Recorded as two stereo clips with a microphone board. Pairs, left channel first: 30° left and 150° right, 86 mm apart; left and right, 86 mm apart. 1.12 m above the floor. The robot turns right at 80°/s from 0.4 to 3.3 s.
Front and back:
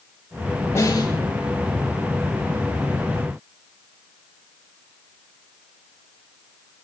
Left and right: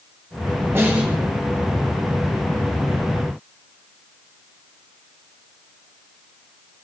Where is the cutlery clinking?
I don't hear cutlery clinking.